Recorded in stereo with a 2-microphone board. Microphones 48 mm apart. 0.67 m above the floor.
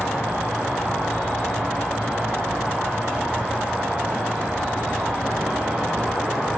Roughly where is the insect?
Left.